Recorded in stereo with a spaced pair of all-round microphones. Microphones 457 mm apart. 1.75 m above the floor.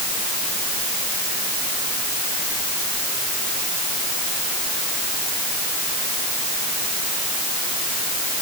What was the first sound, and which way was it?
Only background noise.